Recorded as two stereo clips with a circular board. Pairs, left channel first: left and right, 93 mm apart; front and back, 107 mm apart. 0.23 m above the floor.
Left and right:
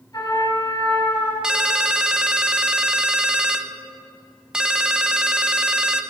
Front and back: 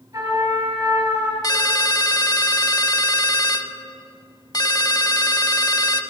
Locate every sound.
0.1 s a trumpet: 135° left, 4 m
1.4 s a ringtone: 15° right, 0.6 m